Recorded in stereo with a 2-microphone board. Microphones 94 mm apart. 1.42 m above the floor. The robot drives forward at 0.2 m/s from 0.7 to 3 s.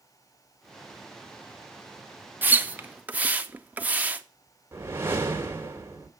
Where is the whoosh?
25° right (ahead or behind), 1.9 m.